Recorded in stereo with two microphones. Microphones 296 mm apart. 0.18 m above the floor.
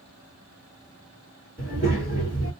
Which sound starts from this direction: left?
A child speaking, at 1.6 s.